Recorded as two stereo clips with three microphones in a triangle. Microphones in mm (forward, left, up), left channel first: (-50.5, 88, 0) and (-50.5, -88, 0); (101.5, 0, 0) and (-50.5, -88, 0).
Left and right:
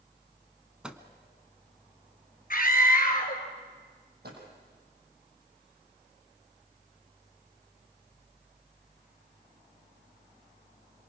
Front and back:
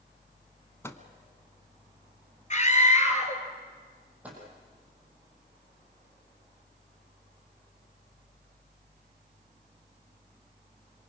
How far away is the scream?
About 2.5 m.